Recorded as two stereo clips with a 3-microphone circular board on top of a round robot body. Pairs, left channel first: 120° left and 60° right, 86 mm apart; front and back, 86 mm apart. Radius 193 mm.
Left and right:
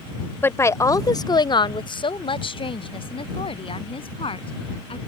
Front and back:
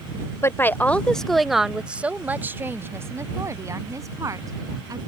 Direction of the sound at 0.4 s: 55° left.